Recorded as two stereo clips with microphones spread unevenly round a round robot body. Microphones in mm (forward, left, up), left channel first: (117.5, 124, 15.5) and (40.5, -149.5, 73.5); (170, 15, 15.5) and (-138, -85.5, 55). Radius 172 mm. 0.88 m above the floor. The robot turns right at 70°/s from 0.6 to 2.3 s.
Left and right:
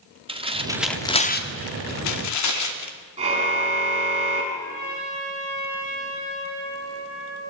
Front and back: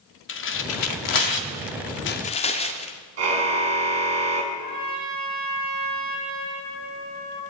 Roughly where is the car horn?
Behind.